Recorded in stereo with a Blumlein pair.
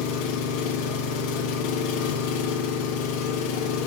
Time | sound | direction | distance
0.0 | an engine running | 45° left | 1.7 m